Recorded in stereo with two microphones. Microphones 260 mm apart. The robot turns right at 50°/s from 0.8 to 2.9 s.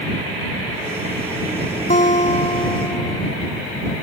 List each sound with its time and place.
1.9 s a guitar: 100° left; by 3.2 s 150° left